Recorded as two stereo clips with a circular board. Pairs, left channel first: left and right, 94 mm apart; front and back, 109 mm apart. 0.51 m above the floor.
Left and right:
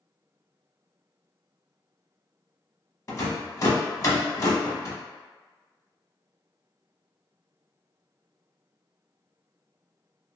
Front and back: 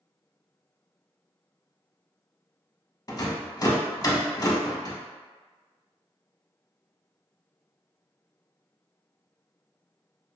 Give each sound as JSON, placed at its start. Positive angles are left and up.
{"t": 3.1, "sound": "a rattle", "azimuth_deg": 45, "distance_m": 0.5}